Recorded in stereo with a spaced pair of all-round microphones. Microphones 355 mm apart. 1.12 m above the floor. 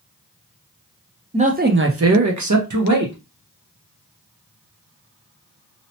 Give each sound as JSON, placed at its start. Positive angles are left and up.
{"t": 1.3, "sound": "a man speaking", "side_deg": -15, "distance_m": 0.6}